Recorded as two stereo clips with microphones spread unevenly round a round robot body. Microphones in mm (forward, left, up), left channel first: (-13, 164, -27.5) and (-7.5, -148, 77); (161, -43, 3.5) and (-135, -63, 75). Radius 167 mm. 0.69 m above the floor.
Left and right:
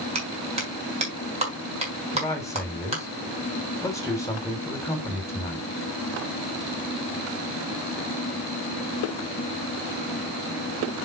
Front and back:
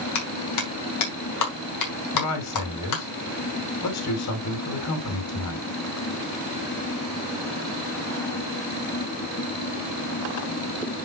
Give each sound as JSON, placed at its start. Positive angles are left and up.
{"t": 0.1, "sound": "a clap", "azimuth_deg": -15, "distance_m": 3.5}
{"t": 2.1, "sound": "a man speaking", "azimuth_deg": 20, "distance_m": 3.0}